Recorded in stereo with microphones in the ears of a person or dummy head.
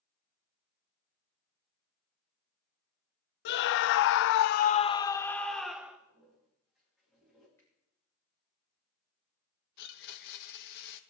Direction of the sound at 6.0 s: Centre (ahead or behind).